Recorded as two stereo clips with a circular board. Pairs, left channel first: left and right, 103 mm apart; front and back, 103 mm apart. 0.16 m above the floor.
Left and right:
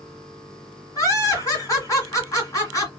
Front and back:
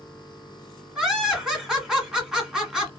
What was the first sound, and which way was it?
Laughter, 100° left.